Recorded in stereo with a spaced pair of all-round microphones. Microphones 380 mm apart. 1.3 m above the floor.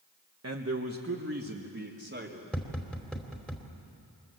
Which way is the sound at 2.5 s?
Centre (ahead or behind).